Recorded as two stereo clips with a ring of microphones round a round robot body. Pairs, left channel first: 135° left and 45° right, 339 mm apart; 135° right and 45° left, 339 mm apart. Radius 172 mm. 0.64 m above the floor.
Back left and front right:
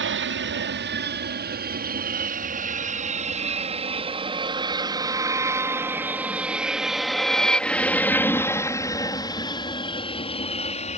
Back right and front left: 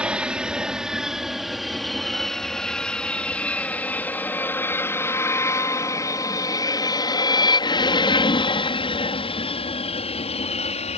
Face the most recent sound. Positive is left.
turn(degrees=180)